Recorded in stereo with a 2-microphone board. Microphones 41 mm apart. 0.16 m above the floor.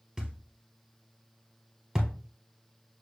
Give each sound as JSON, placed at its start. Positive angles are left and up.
{"t": 0.2, "sound": "a thud", "side_deg": -15, "distance_m": 1.6}